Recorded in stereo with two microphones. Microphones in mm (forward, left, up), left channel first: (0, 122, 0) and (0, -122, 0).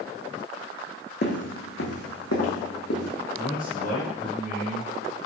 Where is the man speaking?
35° left (ahead or behind), 1.7 m.